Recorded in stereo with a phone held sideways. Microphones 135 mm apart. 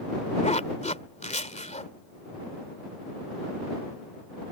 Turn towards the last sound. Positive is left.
turn(degrees=60)  # may be behind; listen again after turning